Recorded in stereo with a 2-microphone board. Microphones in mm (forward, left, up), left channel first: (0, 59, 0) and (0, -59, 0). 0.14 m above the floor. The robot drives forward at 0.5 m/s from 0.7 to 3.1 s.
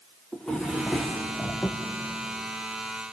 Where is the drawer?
5° left (ahead or behind), 3 m.